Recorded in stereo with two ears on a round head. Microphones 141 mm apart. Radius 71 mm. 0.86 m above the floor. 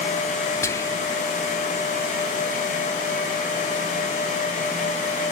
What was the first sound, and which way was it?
Whispering, 20° left (ahead or behind).